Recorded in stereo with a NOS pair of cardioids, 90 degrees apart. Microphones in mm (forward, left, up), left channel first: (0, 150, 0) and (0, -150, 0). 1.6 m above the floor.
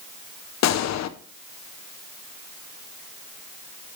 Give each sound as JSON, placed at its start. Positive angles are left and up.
{"t": 0.6, "sound": "a gunshot", "azimuth_deg": 65, "distance_m": 1.0}